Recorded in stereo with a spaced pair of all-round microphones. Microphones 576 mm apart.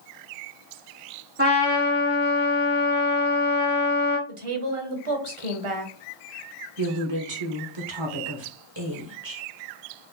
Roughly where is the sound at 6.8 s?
Right.